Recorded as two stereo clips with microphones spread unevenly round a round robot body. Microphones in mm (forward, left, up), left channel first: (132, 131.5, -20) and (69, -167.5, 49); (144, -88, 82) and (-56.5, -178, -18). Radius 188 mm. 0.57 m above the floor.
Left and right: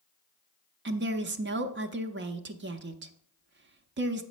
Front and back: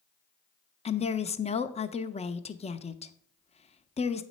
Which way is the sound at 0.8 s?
65° right.